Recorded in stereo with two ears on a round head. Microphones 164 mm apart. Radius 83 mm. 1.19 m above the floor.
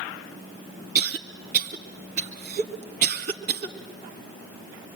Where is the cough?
40° right (ahead or behind), 2 m.